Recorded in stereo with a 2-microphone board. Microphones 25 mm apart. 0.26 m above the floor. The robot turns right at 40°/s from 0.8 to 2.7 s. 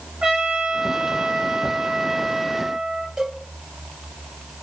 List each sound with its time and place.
0.2 s a trumpet: 125° right, 3.5 m; by 3.1 s 50° right, 3.5 m
3.2 s a cowbell: 30° right (ahead or behind), 4 m